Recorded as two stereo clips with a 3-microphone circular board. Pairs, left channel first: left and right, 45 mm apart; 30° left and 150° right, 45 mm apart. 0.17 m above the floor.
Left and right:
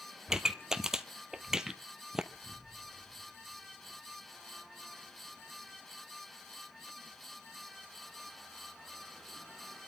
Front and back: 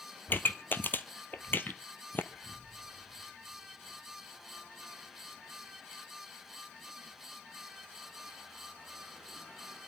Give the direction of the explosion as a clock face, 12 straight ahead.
1 o'clock.